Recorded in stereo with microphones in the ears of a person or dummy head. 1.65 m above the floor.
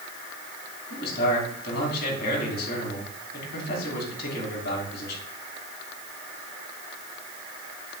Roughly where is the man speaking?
Left.